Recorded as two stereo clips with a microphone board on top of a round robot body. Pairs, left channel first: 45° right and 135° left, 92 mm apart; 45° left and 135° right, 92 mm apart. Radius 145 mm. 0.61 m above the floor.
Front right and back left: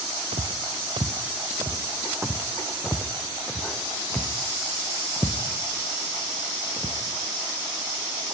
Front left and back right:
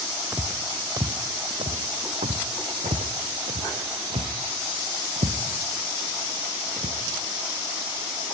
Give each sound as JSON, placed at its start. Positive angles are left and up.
{"t": 0.3, "sound": "footsteps", "azimuth_deg": 145, "distance_m": 1.1}